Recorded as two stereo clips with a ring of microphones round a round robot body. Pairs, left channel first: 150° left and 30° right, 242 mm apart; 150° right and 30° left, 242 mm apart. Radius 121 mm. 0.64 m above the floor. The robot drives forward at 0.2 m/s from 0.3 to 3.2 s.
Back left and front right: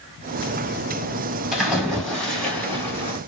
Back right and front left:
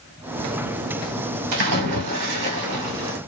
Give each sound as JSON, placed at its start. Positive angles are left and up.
{"t": 1.5, "sound": "a splash", "azimuth_deg": 60, "distance_m": 1.6}